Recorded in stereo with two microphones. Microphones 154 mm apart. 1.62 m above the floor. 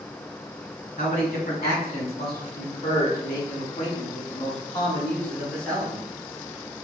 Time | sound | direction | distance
1.0 | a man speaking | 75° left (ahead or behind) | 2.0 m